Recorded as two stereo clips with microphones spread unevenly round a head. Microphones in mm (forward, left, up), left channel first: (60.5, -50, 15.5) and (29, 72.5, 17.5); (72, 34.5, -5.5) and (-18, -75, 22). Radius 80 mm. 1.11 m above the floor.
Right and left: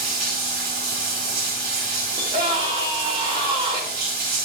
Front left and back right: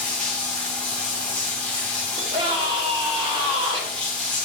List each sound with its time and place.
0.0 s running water: 135° left, 3.5 m
2.2 s a scream: 170° left, 2.5 m